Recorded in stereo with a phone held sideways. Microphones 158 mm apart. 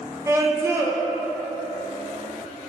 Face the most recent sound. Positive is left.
turn(degrees=-20)  # may be behind; listen again after turning